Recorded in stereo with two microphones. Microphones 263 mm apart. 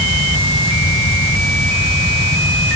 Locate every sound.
Only background noise.